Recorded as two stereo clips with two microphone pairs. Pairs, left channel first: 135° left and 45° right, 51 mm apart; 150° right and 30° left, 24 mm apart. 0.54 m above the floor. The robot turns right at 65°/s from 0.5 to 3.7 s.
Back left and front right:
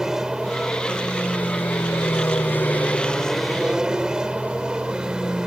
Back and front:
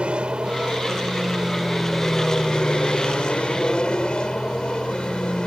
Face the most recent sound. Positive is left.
turn(degrees=-115)